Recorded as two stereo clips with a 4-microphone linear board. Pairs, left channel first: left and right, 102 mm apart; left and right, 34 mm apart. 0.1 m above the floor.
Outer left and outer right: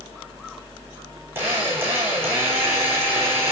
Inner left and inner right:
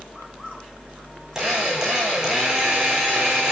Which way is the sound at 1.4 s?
20° right (ahead or behind).